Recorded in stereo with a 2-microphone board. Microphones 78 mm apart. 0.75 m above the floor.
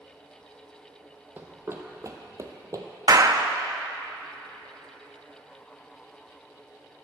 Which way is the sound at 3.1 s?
50° right (ahead or behind).